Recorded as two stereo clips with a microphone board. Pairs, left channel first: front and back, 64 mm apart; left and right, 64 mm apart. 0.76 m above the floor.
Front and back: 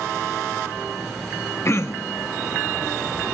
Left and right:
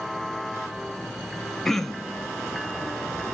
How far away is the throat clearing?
About 0.5 m.